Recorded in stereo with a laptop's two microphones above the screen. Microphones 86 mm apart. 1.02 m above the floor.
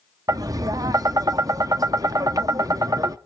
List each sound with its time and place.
0.3 s tapping: 45° right (ahead or behind), 0.5 m